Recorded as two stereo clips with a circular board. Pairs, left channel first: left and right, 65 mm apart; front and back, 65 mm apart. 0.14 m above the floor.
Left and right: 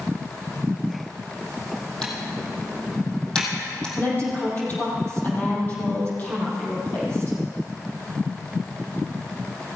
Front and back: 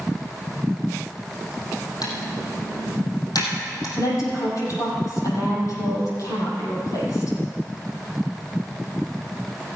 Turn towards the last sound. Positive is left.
turn(degrees=30)